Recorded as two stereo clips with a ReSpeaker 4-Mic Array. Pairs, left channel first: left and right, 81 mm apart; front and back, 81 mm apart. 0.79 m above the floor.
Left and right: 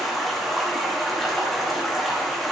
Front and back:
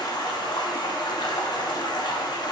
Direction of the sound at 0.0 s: Straight ahead.